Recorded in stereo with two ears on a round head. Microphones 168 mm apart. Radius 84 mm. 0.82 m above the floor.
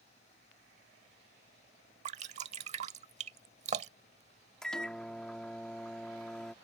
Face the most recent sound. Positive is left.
turn(degrees=5)  # may be behind; listen again after turning